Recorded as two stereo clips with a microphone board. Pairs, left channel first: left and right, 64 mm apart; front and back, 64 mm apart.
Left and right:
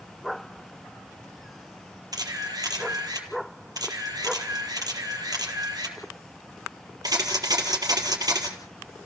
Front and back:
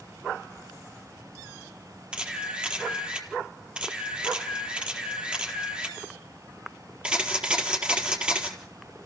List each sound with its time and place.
2.1 s a camera shutter: 105° right, 4 m